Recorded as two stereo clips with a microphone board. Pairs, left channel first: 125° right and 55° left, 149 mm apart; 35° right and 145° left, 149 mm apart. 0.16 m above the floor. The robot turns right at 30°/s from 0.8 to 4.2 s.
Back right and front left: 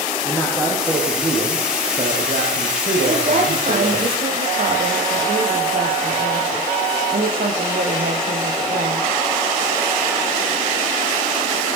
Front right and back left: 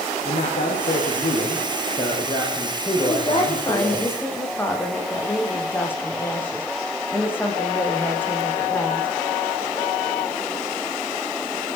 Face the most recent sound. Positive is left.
turn(degrees=45)